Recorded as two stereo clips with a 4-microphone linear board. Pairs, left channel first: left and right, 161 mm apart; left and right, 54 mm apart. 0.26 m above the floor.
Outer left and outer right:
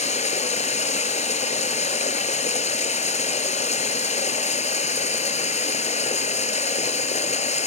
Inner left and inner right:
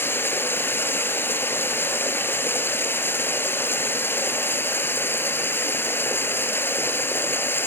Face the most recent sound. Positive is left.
turn(degrees=45)  # may be behind; listen again after turning